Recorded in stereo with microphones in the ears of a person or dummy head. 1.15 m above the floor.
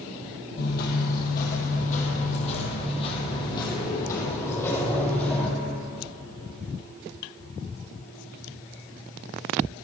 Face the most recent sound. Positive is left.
turn(degrees=5)  # may be behind; listen again after turning